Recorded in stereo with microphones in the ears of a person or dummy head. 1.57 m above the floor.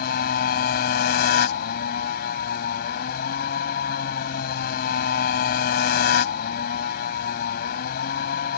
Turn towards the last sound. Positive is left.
turn(degrees=60)  # may be behind; listen again after turning